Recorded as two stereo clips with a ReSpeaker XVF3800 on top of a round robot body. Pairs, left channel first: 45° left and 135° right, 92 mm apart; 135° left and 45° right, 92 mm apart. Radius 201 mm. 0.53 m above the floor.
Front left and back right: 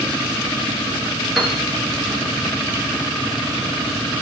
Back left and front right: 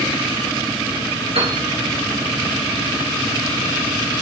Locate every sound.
1.4 s a piano: 45° right, 3.5 m